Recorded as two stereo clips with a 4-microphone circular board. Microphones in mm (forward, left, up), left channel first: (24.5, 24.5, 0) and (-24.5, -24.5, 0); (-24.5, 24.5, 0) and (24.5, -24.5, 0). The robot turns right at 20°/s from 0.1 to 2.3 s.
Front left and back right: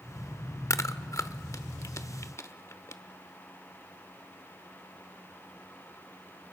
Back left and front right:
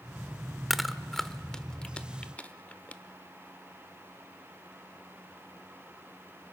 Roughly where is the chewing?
Ahead left.